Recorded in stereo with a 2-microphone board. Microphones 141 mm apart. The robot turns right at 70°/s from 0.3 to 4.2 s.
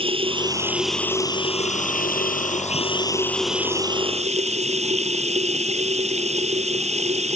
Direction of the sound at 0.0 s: 40° right.